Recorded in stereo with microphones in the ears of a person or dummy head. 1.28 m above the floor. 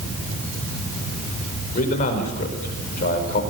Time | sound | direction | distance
1.8 | a man speaking | 50° left (ahead or behind) | 5 m